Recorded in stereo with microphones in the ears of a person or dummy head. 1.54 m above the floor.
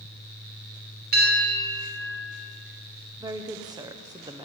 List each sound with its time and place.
1.1 s a bell: 45° right (ahead or behind), 3 m
3.2 s a woman speaking: 20° right (ahead or behind), 0.9 m